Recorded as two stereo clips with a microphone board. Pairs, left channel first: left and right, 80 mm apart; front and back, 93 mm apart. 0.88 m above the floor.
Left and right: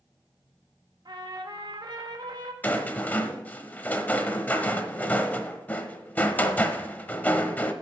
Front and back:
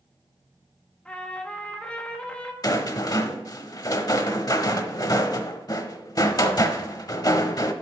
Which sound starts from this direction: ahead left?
A rattle, at 2.6 s.